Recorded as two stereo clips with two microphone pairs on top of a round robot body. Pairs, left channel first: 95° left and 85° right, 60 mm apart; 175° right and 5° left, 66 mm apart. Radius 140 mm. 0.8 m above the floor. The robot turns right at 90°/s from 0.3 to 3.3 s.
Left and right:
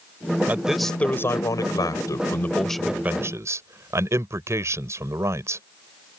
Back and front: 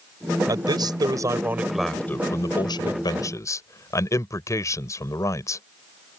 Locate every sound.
0.5 s a man speaking: 20° right; by 5.6 s 130° right